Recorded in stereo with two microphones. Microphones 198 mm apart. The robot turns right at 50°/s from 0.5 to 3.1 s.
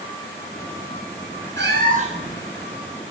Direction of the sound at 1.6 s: 60° right.